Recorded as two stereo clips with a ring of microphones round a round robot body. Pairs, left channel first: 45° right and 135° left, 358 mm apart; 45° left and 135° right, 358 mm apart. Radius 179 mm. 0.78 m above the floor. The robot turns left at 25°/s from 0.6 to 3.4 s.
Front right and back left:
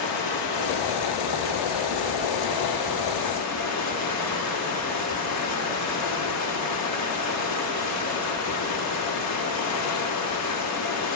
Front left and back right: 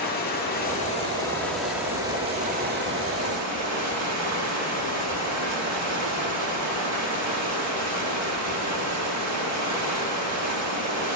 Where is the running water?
20° right, 1.4 m; by 11.2 s 90° right, 1.4 m.